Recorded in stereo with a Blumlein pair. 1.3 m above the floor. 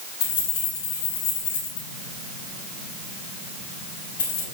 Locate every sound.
0.2 s keys jangling: 60° left, 3.5 m